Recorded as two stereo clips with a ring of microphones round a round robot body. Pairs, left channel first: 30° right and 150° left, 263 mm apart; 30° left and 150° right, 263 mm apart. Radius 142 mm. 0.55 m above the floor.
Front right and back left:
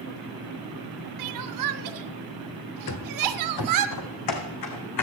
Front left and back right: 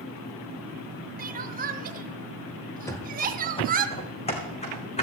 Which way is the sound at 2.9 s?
50° right.